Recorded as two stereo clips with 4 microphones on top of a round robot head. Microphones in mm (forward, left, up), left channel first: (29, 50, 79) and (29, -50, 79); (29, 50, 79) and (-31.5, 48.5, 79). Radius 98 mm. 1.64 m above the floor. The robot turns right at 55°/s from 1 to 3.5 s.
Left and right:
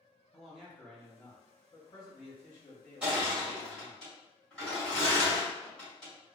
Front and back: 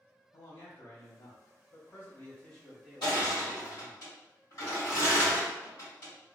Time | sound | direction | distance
0.3 | a man speaking | 5° right | 0.9 m
3.0 | crushing | 20° right | 1.7 m